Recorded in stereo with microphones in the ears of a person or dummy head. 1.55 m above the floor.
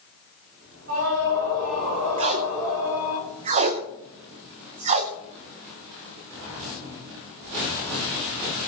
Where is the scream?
50° right (ahead or behind), 8.5 m.